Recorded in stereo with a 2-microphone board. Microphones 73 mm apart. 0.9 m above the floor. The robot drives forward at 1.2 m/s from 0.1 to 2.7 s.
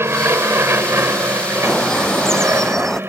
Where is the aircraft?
35° right (ahead or behind); by 3.1 s 30° right (ahead or behind).